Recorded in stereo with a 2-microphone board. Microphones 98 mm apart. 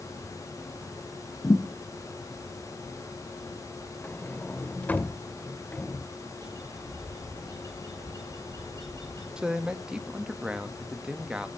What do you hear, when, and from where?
1.4 s a thud: 35° left (ahead or behind), 2.5 m
4.0 s a sliding door: 15° left (ahead or behind), 0.7 m
6.4 s a bird: 45° right (ahead or behind), 9 m
9.4 s a man speaking: 10° right (ahead or behind), 1.4 m